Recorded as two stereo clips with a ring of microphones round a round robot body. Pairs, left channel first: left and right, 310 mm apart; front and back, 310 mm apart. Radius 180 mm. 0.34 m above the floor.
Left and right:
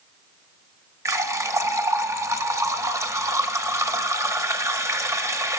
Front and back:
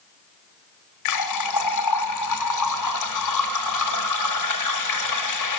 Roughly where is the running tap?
Ahead.